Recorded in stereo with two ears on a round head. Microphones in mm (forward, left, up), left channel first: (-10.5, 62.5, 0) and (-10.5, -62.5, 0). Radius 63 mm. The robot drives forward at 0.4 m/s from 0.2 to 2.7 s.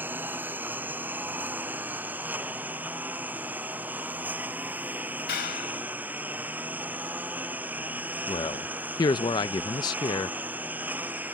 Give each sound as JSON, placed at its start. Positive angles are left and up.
{"t": 0.0, "sound": "a lawn mower", "side_deg": -15}
{"t": 5.3, "sound": "a clap", "side_deg": 85}
{"t": 8.3, "sound": "a man speaking", "side_deg": 30}